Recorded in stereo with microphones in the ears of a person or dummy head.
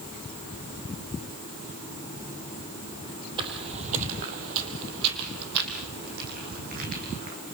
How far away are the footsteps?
About 2.5 m.